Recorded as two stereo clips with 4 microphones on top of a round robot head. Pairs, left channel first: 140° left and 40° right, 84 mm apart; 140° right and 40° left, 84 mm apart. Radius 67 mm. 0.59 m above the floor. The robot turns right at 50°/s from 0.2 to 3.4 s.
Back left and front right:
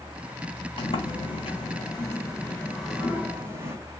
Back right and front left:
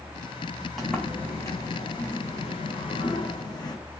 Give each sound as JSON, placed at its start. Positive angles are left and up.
{"t": 0.8, "sound": "a sliding door", "azimuth_deg": 125, "distance_m": 4.5}